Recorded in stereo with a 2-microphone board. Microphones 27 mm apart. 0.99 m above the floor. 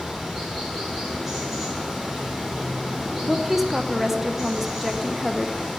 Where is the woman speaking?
10° right (ahead or behind), 0.9 m.